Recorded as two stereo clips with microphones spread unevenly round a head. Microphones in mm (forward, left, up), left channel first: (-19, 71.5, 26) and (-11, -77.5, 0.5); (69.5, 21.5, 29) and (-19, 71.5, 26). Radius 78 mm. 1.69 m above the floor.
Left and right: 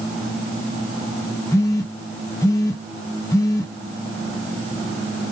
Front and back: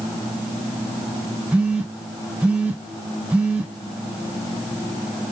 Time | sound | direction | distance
1.5 | a phone buzzing | 80° left | 0.6 m